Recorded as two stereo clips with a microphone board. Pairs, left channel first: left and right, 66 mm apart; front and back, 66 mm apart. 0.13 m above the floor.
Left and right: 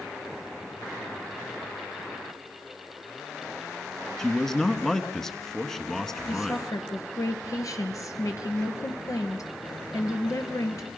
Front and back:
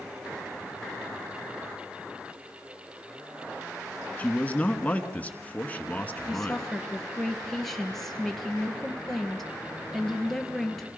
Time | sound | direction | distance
4.2 | a man speaking | 15° left | 1.2 m
6.3 | a woman speaking | 85° left | 2 m